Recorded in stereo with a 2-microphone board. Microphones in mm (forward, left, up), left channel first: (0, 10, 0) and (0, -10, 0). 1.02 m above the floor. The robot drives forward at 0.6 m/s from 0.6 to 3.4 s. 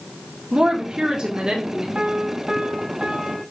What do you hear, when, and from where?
0.5 s a woman speaking: 45° right (ahead or behind), 2 m; by 1.9 s 35° right (ahead or behind), 3 m
1.9 s a piano: 50° right (ahead or behind), 1.2 m; by 3.4 s 30° right (ahead or behind), 1.8 m